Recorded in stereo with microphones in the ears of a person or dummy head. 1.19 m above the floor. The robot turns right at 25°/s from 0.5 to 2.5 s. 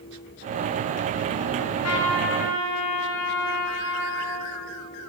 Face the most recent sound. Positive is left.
turn(degrees=65)  # may be behind; listen again after turning